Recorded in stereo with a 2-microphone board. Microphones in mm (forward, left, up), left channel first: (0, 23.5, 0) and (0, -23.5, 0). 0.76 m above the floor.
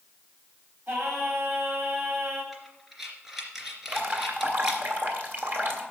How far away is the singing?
About 4.5 m.